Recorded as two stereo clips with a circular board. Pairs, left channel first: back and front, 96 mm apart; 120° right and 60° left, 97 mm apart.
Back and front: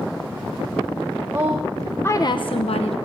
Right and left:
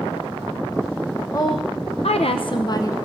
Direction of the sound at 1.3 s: 65° right.